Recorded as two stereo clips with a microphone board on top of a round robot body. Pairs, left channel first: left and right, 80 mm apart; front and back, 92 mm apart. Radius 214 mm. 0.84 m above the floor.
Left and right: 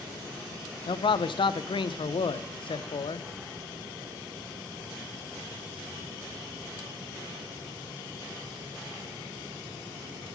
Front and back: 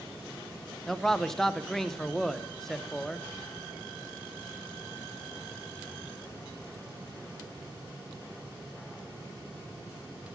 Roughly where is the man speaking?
Left.